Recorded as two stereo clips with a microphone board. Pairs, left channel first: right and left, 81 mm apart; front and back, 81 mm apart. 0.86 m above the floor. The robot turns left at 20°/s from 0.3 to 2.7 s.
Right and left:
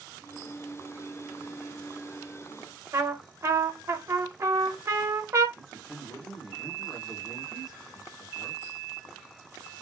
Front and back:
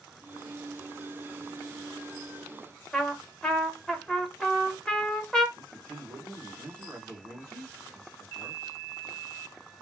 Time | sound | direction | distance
2.9 | a trumpet | 75° left | 0.8 m
5.6 | a man speaking | 130° right | 1.9 m